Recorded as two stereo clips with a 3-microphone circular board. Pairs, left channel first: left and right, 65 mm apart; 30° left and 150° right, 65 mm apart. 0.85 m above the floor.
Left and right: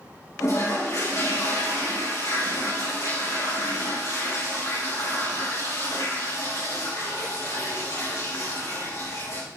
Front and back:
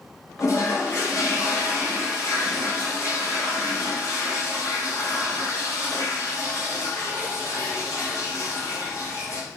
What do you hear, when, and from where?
0.4 s a toilet flushing: 65° left, 4 m